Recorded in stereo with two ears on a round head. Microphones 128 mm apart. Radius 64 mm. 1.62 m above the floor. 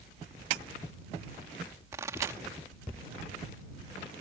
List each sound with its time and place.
1.9 s a pop: 20° right (ahead or behind)